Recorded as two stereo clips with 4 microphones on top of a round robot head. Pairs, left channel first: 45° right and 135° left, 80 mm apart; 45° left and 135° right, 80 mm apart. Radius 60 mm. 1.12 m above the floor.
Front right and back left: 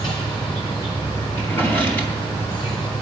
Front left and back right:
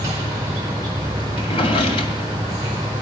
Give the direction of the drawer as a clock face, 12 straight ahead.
11 o'clock.